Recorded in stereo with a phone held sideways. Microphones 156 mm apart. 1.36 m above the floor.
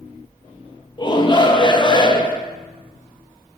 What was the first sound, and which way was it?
A shout, 30° left (ahead or behind).